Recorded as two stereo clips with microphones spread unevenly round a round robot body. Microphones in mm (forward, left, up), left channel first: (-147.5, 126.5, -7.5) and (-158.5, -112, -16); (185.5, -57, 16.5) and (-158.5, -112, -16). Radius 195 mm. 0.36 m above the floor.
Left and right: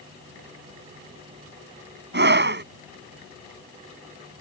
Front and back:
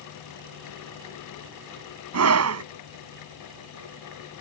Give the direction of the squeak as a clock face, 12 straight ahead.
No squeak in this recording.